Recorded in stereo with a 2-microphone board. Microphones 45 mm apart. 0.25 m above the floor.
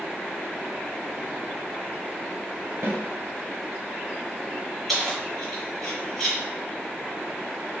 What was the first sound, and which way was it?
A snare drum, 60° right (ahead or behind).